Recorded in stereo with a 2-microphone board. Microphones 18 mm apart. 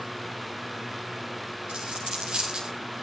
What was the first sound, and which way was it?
A dropped coin, 65° right (ahead or behind).